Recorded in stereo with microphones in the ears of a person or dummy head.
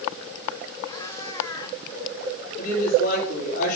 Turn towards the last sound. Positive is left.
turn(degrees=55)  # may be behind; listen again after turning